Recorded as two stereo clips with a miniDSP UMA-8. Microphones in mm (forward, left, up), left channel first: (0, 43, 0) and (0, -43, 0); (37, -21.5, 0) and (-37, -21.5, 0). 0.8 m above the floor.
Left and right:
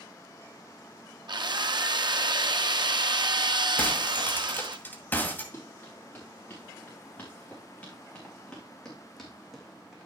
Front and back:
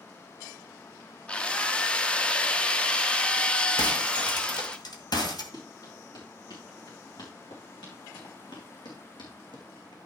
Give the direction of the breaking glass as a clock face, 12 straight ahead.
11 o'clock.